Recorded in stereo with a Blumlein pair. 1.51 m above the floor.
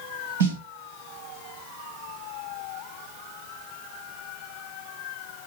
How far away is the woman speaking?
I don't hear a woman speaking.